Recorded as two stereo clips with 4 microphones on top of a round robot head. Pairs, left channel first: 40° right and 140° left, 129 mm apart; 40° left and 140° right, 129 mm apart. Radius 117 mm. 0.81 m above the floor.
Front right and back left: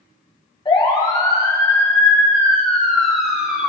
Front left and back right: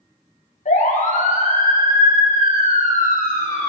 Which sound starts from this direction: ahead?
A siren, at 0.7 s.